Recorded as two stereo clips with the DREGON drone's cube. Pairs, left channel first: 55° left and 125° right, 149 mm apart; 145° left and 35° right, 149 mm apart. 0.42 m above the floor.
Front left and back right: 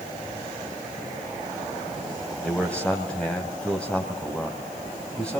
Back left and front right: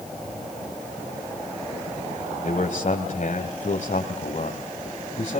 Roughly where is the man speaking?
Behind left.